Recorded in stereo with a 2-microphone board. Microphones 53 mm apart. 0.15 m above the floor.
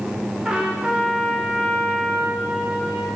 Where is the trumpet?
15° right (ahead or behind), 4 m.